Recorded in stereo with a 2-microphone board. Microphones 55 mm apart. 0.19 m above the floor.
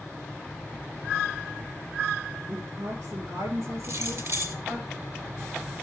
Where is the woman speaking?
50° right (ahead or behind), 3 m.